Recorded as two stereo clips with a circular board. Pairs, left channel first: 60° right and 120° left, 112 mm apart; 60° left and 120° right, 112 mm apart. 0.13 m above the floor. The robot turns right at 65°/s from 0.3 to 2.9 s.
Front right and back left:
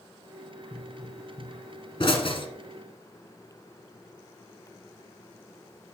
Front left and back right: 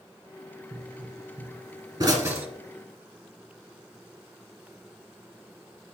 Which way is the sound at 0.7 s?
170° right.